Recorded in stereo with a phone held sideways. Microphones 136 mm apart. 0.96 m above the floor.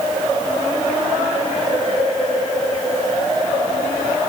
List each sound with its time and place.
Only background noise.